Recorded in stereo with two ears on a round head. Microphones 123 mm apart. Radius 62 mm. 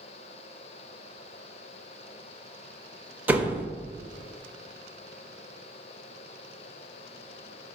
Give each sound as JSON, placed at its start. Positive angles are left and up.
{"t": 3.3, "sound": "a door slam", "side_deg": -15, "distance_m": 1.1}